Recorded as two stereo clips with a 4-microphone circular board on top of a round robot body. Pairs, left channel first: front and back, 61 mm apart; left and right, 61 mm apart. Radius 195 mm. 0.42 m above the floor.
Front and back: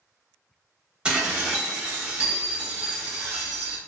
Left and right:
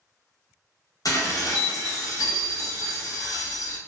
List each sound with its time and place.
1.1 s dishes clattering: 105° left, 1.0 m